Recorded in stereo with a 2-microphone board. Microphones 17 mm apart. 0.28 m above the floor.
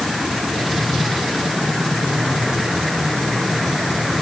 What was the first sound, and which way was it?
Only background noise.